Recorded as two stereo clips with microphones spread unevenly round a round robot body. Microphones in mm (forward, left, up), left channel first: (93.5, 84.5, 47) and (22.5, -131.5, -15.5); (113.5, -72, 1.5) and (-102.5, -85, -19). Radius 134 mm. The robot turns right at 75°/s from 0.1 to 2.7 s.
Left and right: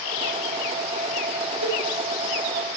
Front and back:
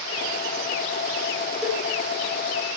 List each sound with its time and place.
1.6 s a cowbell: 90° right, 7.5 m; by 1.8 s 75° right, 7.5 m